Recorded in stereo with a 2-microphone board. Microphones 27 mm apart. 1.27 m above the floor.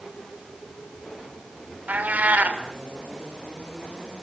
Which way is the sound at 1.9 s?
80° right.